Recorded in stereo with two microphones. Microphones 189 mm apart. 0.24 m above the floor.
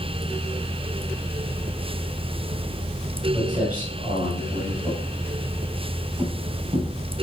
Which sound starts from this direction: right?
Footsteps, at 3.3 s.